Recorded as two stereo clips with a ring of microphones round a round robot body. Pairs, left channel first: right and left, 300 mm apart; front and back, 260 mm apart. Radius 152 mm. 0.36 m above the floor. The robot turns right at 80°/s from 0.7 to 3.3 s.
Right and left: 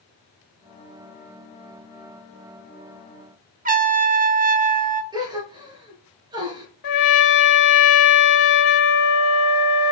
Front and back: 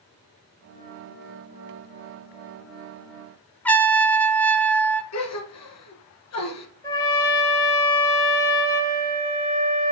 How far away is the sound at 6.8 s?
About 1.1 m.